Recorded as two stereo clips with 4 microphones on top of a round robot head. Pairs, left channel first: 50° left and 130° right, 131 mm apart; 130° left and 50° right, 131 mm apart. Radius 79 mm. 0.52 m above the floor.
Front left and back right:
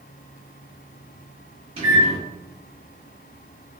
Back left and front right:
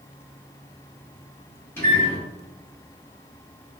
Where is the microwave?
160° right, 1.5 m.